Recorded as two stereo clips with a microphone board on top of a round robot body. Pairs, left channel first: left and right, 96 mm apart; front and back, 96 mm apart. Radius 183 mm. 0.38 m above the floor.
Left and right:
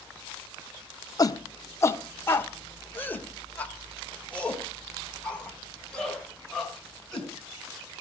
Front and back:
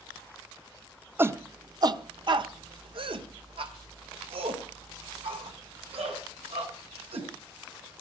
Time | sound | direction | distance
1.2 | a shout | 120° left | 1.0 m